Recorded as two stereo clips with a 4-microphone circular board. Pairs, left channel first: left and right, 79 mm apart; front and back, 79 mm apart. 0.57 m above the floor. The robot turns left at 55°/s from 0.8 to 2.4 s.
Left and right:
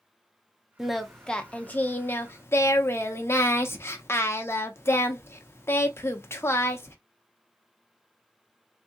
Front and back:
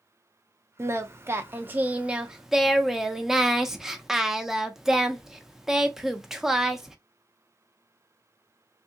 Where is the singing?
170° right, 0.5 m; by 7.0 s 100° left, 0.5 m.